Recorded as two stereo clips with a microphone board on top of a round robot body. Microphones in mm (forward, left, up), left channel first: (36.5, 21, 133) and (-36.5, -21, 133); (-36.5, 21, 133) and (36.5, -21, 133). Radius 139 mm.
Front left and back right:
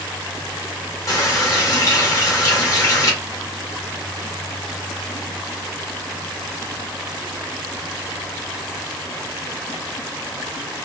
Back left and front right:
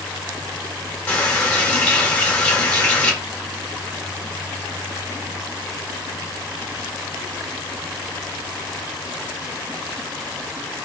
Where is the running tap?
80° left, 1.3 m.